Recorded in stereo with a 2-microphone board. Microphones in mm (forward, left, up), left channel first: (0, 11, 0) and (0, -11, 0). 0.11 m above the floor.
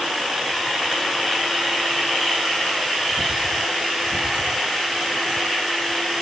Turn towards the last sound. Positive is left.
No sound to turn to.